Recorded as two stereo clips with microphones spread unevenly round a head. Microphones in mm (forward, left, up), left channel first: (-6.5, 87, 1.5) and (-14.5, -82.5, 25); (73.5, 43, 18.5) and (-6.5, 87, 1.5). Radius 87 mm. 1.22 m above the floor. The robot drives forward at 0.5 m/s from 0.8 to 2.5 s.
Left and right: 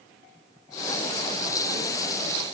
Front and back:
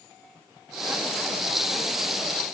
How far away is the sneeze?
I don't hear a sneeze.